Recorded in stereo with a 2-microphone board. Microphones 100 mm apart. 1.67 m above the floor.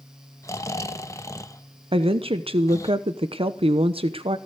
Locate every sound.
0.4 s snoring: 30° left (ahead or behind), 1.0 m
1.9 s a woman speaking: 70° right (ahead or behind), 1.0 m